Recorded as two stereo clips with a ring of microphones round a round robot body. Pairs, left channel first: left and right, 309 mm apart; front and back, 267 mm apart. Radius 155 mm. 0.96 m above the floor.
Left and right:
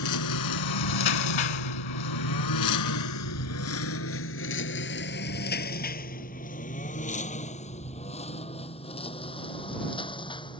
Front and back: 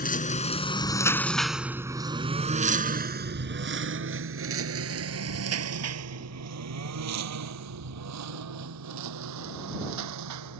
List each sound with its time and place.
0.0 s a lawn mower: 55° left; by 10.6 s 165° left